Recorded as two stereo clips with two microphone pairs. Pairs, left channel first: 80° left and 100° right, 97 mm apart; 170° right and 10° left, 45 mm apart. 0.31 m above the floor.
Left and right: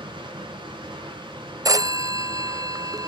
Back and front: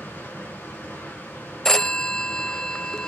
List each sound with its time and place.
0.0 s running water: 135° right, 3 m
1.6 s a phone ringing: 105° right, 0.5 m